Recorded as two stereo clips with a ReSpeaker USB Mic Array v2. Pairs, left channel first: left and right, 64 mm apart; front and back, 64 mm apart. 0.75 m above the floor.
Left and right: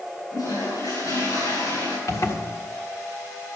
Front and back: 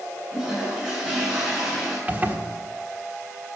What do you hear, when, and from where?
0.3 s a toilet flushing: 90° left, 7.5 m
2.1 s a zipper: 120° left, 1.4 m